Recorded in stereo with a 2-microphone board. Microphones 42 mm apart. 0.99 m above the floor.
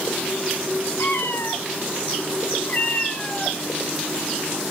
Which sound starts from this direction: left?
A cat meowing, at 1.0 s.